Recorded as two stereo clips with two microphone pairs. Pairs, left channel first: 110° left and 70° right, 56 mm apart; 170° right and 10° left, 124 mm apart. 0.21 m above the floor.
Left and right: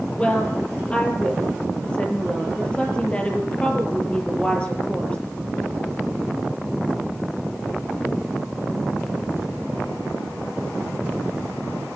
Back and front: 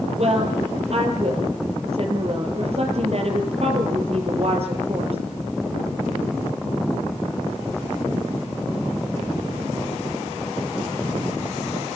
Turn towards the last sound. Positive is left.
turn(degrees=40)